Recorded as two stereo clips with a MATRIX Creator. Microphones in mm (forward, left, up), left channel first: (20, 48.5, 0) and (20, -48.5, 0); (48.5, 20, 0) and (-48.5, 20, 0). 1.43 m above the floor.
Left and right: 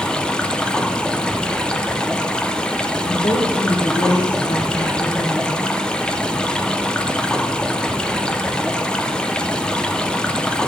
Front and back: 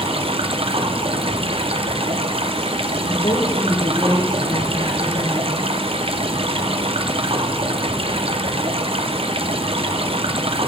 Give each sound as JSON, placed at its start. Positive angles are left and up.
{"t": 0.0, "sound": "running water", "azimuth_deg": 170, "distance_m": 0.8}
{"t": 3.0, "sound": "a woman speaking", "azimuth_deg": 50, "distance_m": 1.8}